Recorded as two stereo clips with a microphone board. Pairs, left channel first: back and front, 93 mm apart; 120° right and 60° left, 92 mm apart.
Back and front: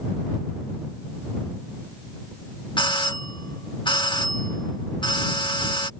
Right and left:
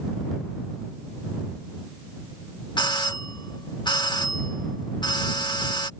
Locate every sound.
2.8 s a doorbell: 155° right